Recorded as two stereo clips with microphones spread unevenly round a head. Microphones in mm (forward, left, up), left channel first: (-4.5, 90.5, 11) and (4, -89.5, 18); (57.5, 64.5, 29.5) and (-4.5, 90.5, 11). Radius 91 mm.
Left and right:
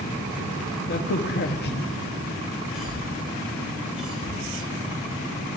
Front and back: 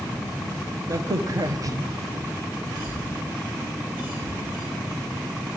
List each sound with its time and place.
0.9 s a crack: 125° left, 1.1 m
2.7 s a cough: 175° right, 7.5 m